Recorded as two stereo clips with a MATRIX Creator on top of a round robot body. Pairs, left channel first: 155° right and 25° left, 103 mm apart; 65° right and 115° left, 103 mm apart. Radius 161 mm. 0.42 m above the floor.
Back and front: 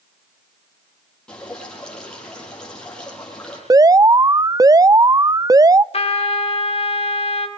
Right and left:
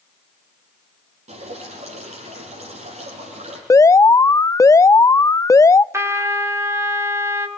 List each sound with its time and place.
1.3 s dripping: 120° left, 8.5 m
3.7 s an alarm: 20° right, 0.6 m
5.9 s a trumpet: 175° left, 3 m